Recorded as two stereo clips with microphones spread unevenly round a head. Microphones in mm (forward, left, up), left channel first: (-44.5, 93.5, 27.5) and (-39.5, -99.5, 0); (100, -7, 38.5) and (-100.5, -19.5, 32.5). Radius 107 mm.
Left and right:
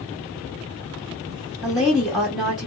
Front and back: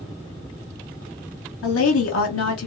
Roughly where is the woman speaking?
Ahead.